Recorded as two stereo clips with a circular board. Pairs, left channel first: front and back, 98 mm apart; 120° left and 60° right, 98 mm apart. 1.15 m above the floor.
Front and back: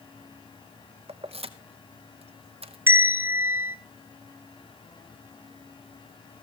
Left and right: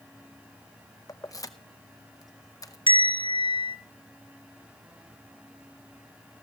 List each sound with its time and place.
1.1 s keys jangling: 175° left, 0.8 m
2.9 s a bell: 115° left, 1.2 m